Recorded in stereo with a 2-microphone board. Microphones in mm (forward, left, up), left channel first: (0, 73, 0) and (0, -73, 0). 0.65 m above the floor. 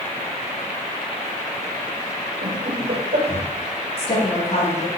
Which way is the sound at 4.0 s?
45° left (ahead or behind).